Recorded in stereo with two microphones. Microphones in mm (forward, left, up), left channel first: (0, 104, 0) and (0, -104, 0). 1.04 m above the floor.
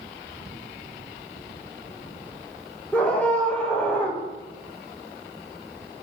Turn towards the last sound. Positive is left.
turn(degrees=5)  # may be behind; listen again after turning